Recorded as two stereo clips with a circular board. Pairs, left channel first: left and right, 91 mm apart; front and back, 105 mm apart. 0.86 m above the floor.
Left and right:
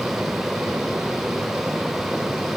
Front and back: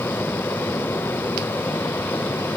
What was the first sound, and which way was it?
Only background noise.